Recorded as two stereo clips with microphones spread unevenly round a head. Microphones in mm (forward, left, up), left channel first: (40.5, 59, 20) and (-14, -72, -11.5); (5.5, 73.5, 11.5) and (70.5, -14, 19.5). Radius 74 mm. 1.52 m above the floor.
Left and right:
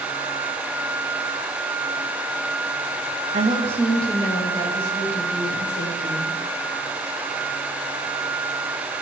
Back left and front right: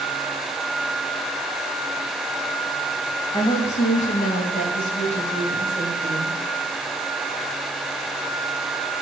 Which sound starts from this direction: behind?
A woman speaking, at 3.3 s.